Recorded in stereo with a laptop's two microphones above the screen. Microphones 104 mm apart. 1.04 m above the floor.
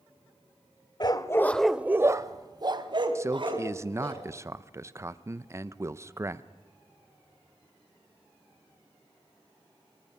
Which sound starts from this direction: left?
A dog barking, at 1.0 s.